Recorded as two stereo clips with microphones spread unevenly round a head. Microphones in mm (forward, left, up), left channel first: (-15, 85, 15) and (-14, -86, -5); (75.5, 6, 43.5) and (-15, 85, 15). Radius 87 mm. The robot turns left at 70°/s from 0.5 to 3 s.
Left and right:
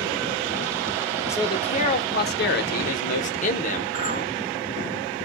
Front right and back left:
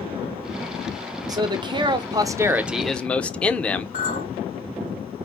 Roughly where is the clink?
Ahead right.